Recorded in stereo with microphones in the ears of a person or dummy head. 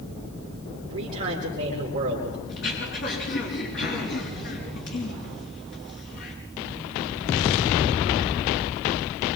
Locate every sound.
0.9 s a man speaking: 25° right (ahead or behind), 5 m
2.5 s throat clearing: 55° left (ahead or behind), 6 m